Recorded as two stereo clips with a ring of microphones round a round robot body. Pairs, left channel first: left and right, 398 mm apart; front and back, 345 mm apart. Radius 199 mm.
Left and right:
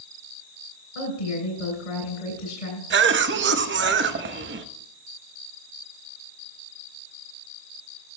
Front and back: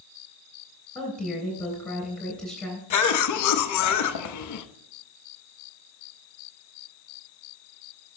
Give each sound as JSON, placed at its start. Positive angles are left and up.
{"t": 0.9, "sound": "a woman speaking", "azimuth_deg": 90, "distance_m": 3.5}
{"t": 2.9, "sound": "a cough", "azimuth_deg": -30, "distance_m": 0.7}